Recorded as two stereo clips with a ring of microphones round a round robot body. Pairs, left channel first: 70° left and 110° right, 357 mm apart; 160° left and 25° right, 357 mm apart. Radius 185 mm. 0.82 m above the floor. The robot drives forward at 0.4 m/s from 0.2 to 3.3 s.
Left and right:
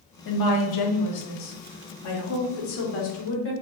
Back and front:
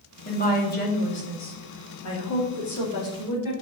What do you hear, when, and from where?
0.2 s a woman speaking: 90° left, 2 m; by 3.5 s 125° left, 2.5 m